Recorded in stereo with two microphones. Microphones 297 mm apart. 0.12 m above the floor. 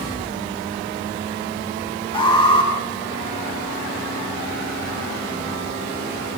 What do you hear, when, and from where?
2.1 s an alarm: 15° left (ahead or behind), 10 m